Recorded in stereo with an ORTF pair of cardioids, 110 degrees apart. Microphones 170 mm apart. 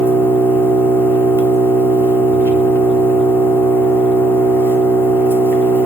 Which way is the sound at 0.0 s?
10° left.